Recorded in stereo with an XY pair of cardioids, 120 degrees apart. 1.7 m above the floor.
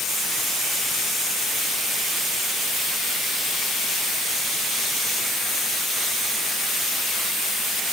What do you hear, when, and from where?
Only background noise.